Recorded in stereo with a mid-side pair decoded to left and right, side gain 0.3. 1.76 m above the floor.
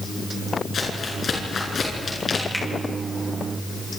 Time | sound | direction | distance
0.7 | crumpling | 65° left | 7 m
2.5 | a finger snap | 15° left | 7 m